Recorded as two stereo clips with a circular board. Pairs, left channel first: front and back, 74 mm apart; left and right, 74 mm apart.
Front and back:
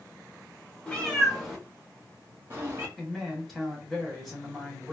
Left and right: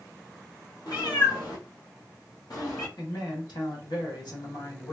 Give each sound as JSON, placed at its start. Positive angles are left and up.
{"t": 0.9, "sound": "a cat meowing", "azimuth_deg": 75, "distance_m": 1.1}
{"t": 3.0, "sound": "a man speaking", "azimuth_deg": 90, "distance_m": 1.7}